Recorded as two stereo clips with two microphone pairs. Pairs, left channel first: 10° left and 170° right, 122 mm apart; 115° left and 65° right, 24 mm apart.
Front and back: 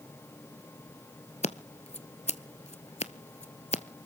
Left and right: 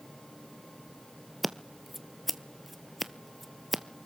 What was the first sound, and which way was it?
Scissors, 20° left.